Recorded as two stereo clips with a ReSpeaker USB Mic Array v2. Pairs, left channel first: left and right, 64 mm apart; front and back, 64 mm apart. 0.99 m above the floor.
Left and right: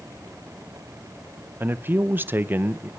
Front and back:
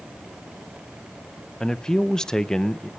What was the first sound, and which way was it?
A man speaking, 75° right.